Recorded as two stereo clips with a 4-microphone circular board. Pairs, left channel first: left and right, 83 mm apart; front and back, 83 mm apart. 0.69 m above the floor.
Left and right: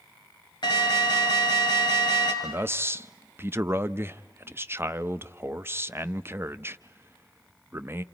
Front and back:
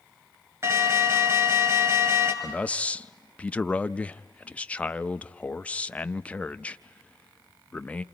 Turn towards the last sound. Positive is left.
turn(degrees=-60)